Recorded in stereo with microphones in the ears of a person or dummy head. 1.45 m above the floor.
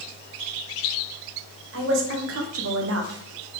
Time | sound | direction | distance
1.7 | a woman speaking | 65° right (ahead or behind) | 1.2 m